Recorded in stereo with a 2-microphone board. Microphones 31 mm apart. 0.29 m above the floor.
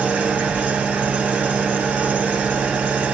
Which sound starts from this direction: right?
An engine running, at 0.0 s.